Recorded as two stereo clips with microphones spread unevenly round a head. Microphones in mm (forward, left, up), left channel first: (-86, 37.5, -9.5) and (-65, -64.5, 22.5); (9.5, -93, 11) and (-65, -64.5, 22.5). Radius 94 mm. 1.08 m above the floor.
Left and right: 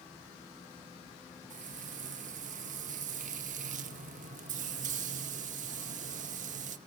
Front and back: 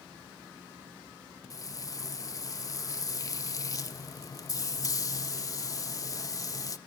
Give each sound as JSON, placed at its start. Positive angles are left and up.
{"t": 1.5, "sound": "frying", "azimuth_deg": -70, "distance_m": 0.8}